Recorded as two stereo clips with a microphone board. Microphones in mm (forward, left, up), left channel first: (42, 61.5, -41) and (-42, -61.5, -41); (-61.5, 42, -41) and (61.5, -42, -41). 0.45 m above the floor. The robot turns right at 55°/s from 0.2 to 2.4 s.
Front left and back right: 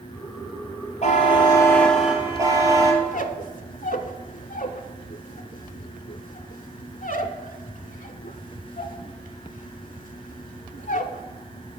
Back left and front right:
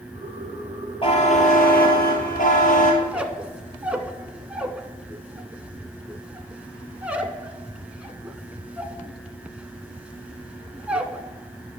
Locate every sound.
1.0 s a buzzer: 90° left, 1.6 m; by 2.9 s 170° left, 1.6 m
3.0 s a squeak: 45° left, 0.5 m